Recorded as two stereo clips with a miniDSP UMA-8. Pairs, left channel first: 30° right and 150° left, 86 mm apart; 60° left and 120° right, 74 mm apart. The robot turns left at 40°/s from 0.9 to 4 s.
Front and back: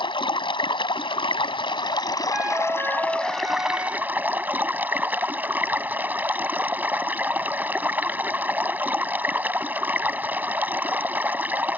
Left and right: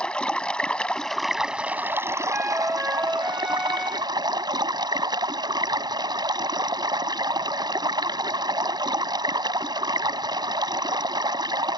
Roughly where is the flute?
Behind right.